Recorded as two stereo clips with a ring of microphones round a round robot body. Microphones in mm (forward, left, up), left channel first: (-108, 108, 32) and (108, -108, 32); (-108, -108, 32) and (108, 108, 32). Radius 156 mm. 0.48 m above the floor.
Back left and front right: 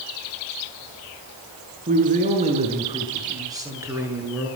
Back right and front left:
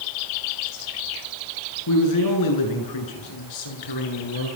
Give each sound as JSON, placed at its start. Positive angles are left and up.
{"t": 1.9, "sound": "a man speaking", "azimuth_deg": -110, "distance_m": 8.0}